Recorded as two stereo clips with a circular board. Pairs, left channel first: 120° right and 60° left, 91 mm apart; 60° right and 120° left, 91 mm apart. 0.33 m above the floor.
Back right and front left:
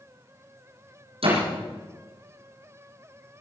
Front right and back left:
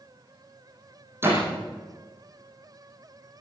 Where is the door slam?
55° left, 9 m.